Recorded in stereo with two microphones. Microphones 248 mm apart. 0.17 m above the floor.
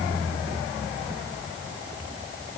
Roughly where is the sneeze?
I don't hear a sneeze.